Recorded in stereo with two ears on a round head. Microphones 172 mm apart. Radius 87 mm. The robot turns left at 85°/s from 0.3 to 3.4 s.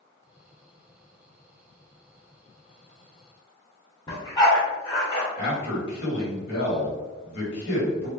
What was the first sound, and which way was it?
A dog barking, 20° left (ahead or behind).